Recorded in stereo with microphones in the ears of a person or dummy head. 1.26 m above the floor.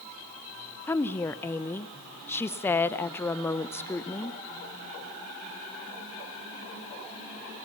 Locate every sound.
0.9 s a woman speaking: 15° left (ahead or behind), 0.7 m